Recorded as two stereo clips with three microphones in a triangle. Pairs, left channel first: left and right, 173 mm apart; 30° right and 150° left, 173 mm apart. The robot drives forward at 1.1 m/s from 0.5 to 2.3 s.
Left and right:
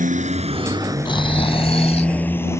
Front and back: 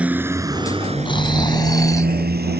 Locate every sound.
0.0 s a motorcycle: 130° right; by 2.6 s 165° left
1.1 s snoring: 30° left; by 2.1 s 40° left